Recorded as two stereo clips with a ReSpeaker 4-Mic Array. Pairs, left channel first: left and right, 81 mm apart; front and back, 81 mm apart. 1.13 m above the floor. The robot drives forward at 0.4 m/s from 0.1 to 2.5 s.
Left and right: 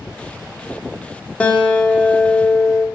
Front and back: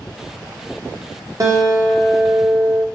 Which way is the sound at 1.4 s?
160° left.